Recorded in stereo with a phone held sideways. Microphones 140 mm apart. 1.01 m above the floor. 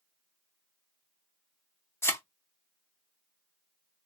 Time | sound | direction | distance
2.0 | a thud | 20° left (ahead or behind) | 0.6 m